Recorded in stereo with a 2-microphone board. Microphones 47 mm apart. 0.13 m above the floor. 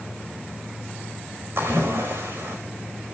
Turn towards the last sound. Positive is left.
turn(degrees=-65)  # may be behind; listen again after turning